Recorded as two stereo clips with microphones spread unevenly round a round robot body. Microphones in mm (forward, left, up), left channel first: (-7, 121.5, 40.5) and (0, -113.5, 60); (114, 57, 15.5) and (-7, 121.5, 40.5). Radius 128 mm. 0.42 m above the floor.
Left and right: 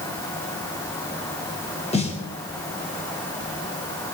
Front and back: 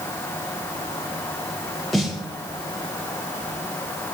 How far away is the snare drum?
About 1.7 m.